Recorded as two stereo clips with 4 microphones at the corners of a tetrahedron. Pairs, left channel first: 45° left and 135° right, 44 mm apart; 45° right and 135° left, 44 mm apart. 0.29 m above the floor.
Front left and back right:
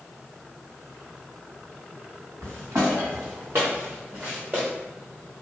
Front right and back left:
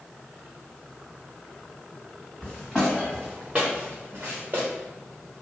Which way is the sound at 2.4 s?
135° right.